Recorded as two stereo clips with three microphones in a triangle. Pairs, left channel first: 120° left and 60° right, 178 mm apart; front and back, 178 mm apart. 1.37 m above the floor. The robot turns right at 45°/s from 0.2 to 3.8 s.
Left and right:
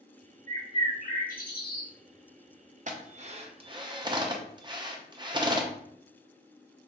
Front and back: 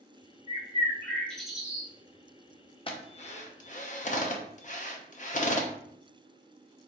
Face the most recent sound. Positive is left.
turn(degrees=-5)